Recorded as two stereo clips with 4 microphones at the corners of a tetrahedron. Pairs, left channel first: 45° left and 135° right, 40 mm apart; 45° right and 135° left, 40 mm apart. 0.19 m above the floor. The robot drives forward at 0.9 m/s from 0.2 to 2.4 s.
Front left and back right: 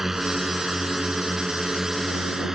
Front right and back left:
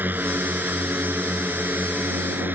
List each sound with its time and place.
0.0 s a drone: 145° left